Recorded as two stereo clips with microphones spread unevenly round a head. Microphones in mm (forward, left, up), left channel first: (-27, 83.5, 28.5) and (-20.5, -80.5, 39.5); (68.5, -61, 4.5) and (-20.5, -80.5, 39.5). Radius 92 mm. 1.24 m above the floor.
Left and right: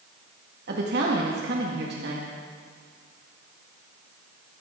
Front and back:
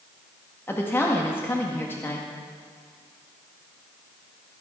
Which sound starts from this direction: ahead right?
A woman speaking, at 0.7 s.